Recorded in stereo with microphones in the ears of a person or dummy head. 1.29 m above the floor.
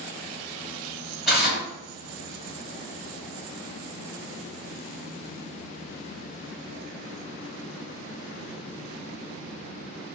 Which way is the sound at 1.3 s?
5° left (ahead or behind).